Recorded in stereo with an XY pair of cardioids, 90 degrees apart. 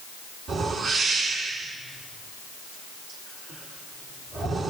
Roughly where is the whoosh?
Right.